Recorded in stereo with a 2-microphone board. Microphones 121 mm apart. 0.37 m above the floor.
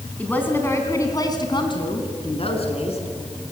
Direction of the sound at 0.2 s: 10° left (ahead or behind).